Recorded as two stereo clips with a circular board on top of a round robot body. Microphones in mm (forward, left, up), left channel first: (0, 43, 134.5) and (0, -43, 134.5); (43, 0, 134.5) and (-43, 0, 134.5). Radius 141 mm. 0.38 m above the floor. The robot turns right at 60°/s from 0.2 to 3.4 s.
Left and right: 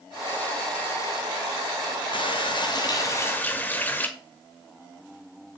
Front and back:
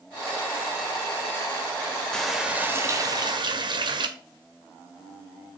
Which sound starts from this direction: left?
A running tap, at 2.1 s.